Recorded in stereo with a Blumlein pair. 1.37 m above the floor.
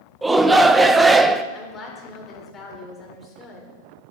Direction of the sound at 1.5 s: 20° left.